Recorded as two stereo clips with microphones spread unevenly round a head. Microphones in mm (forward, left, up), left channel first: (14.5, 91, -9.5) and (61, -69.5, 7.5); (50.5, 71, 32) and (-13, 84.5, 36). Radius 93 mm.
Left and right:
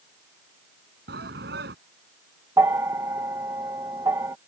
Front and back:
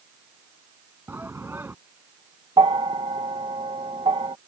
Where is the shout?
115° right.